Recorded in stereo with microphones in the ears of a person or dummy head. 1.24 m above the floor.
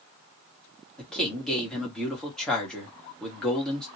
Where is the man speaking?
5° left (ahead or behind), 1.7 m.